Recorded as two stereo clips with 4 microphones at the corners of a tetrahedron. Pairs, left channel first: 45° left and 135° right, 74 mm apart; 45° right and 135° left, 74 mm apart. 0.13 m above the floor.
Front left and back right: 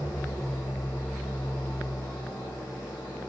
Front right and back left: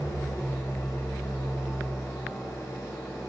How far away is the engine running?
About 8.5 m.